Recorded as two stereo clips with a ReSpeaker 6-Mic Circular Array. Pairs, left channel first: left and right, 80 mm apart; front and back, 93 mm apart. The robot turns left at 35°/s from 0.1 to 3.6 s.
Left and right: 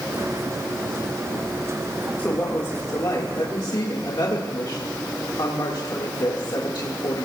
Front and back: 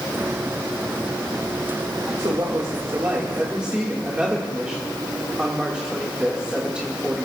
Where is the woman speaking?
150° left, 2 m; by 7.3 s 100° left, 2 m.